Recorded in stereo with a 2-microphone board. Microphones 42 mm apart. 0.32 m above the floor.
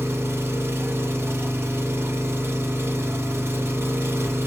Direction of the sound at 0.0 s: 75° right (ahead or behind).